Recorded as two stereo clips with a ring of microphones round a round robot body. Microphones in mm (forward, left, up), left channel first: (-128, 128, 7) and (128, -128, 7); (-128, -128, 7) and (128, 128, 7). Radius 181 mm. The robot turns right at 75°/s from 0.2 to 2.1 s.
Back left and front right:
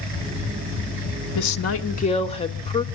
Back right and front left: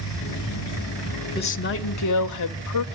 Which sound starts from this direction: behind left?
A woman speaking, at 1.4 s.